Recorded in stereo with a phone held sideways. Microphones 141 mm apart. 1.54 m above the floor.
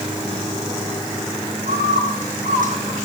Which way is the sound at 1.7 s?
75° right (ahead or behind).